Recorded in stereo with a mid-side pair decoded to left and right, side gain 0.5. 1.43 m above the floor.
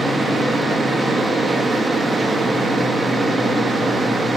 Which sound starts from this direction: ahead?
A fan, at 0.0 s.